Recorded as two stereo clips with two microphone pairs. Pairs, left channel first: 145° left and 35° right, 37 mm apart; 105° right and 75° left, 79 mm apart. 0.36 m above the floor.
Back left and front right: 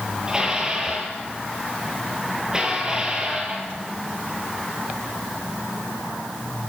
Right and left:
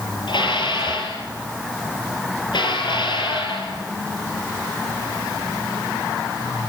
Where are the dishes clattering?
105° right, 6.5 m.